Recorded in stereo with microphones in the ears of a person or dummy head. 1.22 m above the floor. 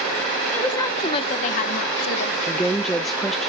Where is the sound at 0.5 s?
15° left (ahead or behind), 0.8 m; by 2.4 s 70° left (ahead or behind), 1.1 m.